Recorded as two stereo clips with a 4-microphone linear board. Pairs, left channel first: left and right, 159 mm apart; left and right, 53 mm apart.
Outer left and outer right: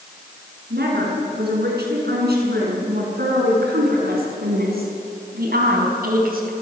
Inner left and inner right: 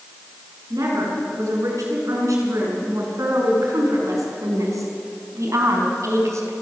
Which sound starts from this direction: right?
A woman speaking, at 0.7 s.